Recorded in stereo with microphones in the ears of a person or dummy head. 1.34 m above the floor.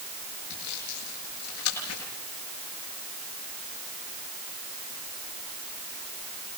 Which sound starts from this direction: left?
Sawing, at 0.5 s.